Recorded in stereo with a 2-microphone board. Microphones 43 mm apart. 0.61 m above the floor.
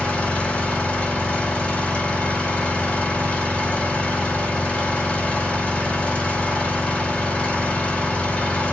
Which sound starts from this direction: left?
An engine running, at 0.0 s.